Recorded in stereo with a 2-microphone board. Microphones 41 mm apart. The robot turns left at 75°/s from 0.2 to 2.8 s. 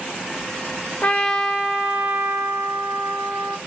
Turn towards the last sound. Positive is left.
turn(degrees=-110)